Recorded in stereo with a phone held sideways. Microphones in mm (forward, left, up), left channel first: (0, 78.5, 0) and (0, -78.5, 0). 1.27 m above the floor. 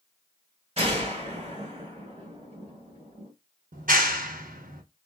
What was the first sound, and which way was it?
A gunshot, 40° right (ahead or behind).